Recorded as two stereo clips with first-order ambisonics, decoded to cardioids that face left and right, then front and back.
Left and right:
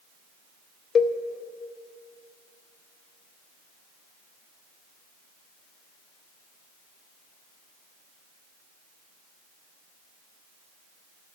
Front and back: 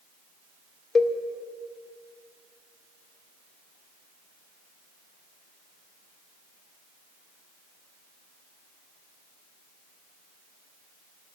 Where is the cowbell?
55° left, 0.5 m.